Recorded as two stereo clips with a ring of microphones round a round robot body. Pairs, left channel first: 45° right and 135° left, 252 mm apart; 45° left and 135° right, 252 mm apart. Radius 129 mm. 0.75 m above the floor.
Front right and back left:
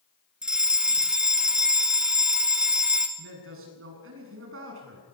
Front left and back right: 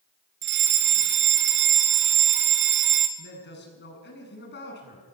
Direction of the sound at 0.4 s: 140° right.